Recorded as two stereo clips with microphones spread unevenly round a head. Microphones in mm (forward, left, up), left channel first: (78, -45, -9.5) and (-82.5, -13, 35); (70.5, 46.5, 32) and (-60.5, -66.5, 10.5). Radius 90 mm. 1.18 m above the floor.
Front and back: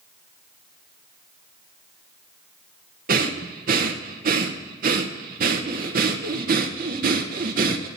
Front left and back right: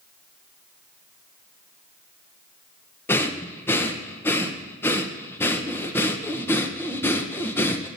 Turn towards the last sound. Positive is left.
turn(degrees=120)